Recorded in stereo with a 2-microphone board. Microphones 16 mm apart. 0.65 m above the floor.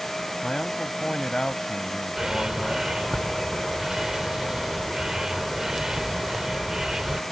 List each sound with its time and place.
0.4 s a man speaking: 70° left (ahead or behind)
2.2 s a bird: 40° right (ahead or behind)